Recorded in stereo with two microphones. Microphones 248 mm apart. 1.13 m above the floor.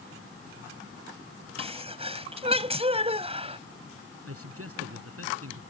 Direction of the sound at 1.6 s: 25° right (ahead or behind).